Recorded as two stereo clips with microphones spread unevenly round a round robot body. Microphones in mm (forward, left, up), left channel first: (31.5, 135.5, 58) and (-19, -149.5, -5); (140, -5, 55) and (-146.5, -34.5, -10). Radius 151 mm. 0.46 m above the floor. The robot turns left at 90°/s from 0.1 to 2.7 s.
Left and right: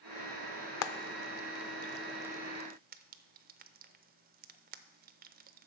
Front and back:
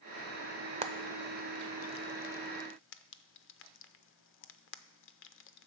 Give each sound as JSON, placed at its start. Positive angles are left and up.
{"t": 0.8, "sound": "frying", "azimuth_deg": 125, "distance_m": 0.6}